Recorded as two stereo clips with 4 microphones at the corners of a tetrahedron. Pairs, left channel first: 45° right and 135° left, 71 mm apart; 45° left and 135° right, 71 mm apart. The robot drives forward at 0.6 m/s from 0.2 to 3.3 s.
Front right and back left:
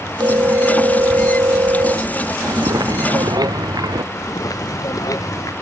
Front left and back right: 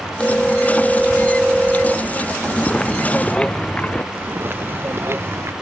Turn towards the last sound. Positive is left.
turn(degrees=-80)